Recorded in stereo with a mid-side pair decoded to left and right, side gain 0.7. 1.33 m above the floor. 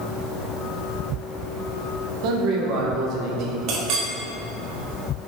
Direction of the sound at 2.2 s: 60° right.